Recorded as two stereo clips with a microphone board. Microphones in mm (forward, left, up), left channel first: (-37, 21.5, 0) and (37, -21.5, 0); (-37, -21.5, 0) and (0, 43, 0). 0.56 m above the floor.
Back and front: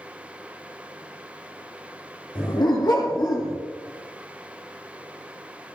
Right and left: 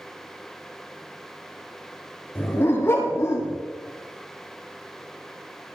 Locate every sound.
2.4 s a dog barking: straight behind, 6 m; by 3.6 s 165° right, 5 m